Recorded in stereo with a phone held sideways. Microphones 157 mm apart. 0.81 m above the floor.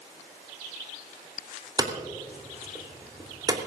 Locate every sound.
1.8 s hammering: 25° right (ahead or behind), 3 m